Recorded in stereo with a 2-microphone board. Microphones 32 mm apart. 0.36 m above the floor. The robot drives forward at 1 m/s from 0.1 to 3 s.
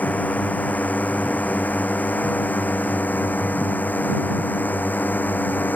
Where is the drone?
65° left (ahead or behind); by 5.8 s 85° left.